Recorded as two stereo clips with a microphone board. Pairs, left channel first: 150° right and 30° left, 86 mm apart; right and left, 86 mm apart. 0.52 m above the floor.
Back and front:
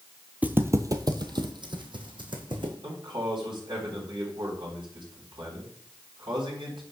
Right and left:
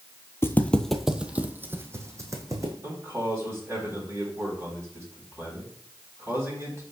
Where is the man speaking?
35° left, 4 m.